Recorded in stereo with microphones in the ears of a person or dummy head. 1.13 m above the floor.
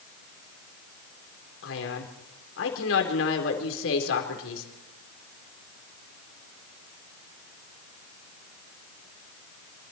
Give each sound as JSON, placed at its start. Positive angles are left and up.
{"t": 1.6, "sound": "a man speaking", "side_deg": 75, "distance_m": 4.0}